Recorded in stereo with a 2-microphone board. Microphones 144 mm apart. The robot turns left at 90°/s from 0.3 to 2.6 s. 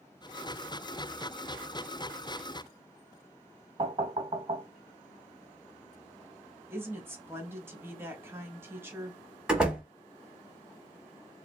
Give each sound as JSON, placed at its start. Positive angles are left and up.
{"t": 3.8, "sound": "knocking", "side_deg": -45, "distance_m": 0.8}
{"t": 6.7, "sound": "a woman speaking", "side_deg": -15, "distance_m": 1.0}
{"t": 9.5, "sound": "a door slam", "side_deg": -5, "distance_m": 0.9}